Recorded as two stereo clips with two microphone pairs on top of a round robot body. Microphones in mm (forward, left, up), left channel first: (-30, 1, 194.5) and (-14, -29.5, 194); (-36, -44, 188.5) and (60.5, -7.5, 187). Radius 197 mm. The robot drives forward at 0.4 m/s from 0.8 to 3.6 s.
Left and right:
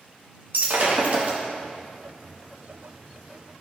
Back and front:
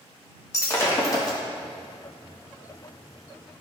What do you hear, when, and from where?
0.5 s breaking glass: 95° right, 1.4 m; by 1.4 s 105° right, 1.4 m